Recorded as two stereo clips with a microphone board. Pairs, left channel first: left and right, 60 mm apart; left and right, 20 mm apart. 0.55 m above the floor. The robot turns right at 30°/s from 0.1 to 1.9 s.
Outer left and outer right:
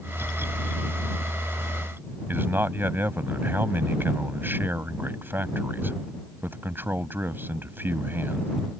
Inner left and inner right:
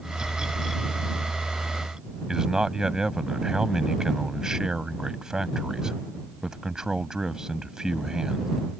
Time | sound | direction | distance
2.3 | a man speaking | 35° right (ahead or behind) | ?